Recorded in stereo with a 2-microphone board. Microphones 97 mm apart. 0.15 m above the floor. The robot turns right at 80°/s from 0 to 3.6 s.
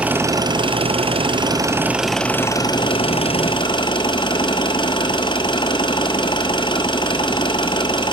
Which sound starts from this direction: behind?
An engine running, at 0.0 s.